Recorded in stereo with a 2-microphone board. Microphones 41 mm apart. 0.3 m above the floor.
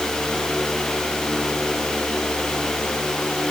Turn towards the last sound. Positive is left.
No sound to turn to.